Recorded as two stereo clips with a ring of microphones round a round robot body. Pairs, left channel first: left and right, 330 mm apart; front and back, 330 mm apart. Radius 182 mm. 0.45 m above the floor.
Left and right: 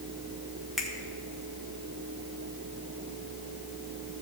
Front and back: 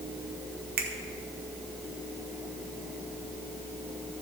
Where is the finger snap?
Straight behind, 1.3 m.